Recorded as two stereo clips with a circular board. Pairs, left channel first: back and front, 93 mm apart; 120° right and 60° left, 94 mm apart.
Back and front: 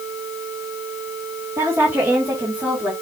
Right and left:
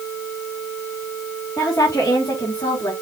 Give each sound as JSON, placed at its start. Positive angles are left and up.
{"t": 1.6, "sound": "a woman speaking", "azimuth_deg": -60, "distance_m": 2.5}